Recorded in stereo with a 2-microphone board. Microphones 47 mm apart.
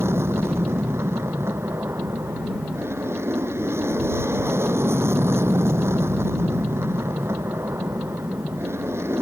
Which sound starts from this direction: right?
An aircraft, at 0.0 s.